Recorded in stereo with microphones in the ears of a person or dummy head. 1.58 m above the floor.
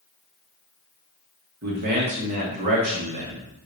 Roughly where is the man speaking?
Right.